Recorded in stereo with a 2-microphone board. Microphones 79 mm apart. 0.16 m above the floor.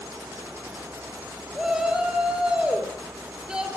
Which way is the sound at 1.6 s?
10° right (ahead or behind).